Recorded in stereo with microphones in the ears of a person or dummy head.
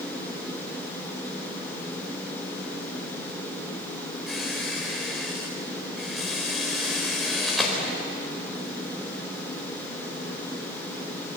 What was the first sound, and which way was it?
A squeak, centre (ahead or behind).